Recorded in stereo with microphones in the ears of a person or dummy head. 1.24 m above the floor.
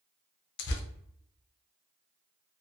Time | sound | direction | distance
0.6 | tearing paper | 70° left (ahead or behind) | 0.6 m